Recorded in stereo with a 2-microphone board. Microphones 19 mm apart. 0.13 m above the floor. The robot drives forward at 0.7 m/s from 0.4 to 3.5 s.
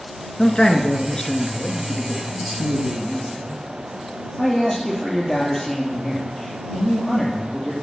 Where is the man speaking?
35° left (ahead or behind), 1.3 m; by 7.7 s 15° left (ahead or behind), 3 m.